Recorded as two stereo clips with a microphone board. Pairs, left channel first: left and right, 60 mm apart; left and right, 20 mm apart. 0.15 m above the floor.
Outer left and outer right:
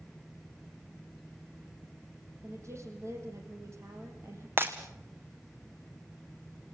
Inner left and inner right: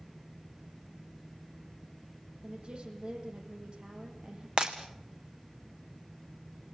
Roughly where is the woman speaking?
Right.